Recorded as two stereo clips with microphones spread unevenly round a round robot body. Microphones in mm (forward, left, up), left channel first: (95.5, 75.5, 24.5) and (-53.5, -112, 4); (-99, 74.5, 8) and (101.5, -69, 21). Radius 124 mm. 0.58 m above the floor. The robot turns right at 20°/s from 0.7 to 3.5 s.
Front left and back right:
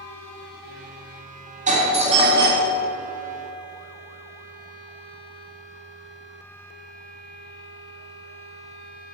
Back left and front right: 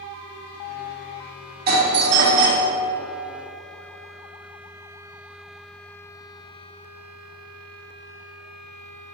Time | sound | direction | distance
1.7 | a doorbell | 80° right | 2 m